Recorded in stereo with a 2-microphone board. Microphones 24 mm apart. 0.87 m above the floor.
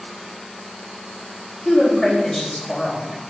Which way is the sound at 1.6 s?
5° left (ahead or behind).